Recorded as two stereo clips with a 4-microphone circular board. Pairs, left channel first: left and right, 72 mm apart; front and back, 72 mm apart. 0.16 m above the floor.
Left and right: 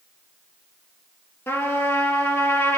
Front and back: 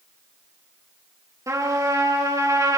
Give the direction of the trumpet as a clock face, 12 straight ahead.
7 o'clock.